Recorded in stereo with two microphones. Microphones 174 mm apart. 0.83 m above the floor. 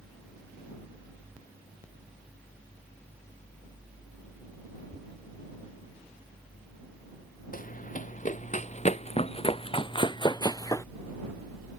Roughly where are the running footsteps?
Left.